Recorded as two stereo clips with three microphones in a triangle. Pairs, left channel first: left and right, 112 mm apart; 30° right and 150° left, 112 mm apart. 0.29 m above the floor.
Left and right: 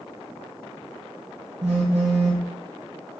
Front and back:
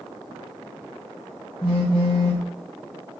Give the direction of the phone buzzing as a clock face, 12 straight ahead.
2 o'clock.